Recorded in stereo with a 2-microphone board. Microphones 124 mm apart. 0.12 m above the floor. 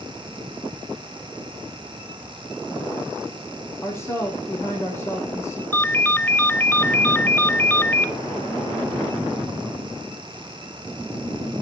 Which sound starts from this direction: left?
A woman speaking, at 3.8 s.